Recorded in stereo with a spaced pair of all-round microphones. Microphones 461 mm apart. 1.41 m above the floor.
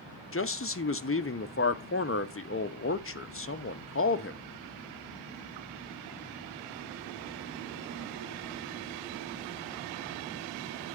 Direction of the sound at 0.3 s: 30° left (ahead or behind).